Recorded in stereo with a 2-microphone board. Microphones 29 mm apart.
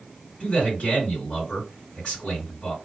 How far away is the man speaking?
About 2.5 m.